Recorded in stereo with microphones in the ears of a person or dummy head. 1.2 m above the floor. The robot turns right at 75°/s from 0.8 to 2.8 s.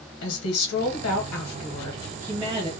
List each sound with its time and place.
0.2 s a woman speaking: 85° left, 0.9 m; by 2.7 s 135° right, 0.9 m